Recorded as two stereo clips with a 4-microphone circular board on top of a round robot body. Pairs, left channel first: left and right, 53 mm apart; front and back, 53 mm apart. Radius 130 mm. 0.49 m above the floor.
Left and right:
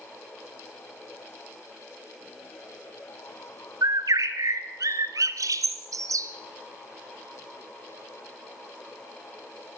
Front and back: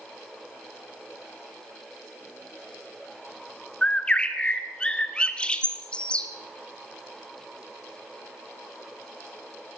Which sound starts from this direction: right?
A bird, at 3.8 s.